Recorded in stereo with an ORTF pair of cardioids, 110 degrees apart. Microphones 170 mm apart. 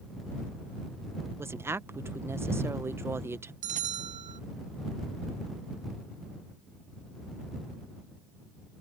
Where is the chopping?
No chopping in this recording.